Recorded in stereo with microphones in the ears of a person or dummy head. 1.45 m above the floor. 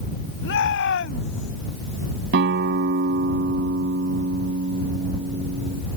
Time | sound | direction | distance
0.4 | a shout | 75° left (ahead or behind) | ?
2.3 | a guitar | 65° right (ahead or behind) | ?